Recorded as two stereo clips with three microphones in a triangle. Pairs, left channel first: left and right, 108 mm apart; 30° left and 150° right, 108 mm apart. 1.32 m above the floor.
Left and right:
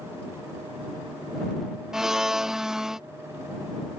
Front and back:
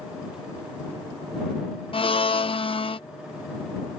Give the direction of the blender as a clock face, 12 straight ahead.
12 o'clock.